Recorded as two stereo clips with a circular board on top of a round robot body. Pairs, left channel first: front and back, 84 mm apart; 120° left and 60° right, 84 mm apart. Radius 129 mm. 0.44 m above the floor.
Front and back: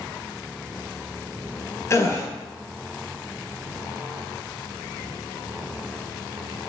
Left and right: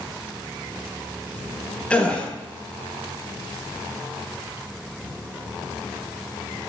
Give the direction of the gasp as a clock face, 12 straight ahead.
10 o'clock.